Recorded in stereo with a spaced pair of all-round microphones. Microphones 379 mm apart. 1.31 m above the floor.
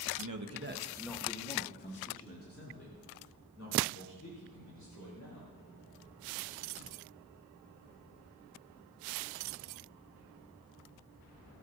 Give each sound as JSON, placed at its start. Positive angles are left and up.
{"t": 0.2, "sound": "a man speaking", "side_deg": -60, "distance_m": 1.3}